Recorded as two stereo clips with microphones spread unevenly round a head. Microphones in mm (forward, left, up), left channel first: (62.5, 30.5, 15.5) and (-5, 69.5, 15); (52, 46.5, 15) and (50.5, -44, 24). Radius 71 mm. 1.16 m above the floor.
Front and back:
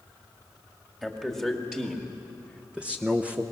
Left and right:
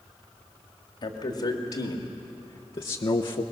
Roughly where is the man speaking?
Left.